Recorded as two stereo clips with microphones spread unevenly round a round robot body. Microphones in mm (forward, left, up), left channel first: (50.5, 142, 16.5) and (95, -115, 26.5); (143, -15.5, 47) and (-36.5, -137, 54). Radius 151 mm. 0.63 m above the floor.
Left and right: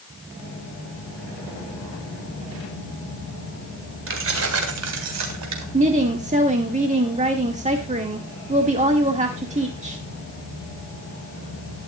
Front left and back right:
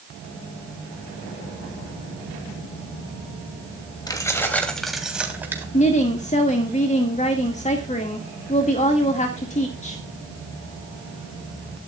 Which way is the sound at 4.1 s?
40° right.